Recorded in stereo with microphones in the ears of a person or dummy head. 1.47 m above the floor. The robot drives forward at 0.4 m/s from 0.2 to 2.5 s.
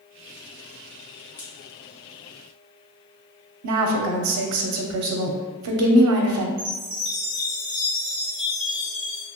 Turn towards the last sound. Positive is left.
turn(degrees=-25)  # may be behind; listen again after turning